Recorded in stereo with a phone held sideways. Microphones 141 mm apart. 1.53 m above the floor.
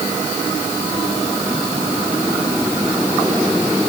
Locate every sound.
Only background noise.